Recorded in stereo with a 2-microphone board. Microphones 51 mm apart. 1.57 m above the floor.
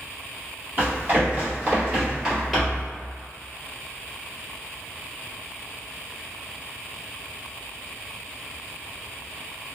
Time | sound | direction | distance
0.8 | running footsteps | 40° right (ahead or behind) | 1.9 m